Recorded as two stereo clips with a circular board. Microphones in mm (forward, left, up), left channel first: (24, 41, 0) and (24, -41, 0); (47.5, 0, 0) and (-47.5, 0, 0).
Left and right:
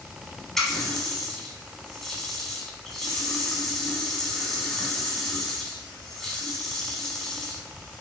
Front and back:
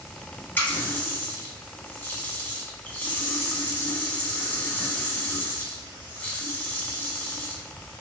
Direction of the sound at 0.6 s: 15° left.